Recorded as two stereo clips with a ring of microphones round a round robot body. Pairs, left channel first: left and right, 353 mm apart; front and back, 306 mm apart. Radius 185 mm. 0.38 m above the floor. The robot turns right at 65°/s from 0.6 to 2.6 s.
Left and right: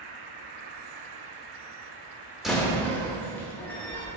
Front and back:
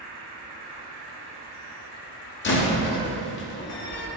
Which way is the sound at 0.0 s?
115° right.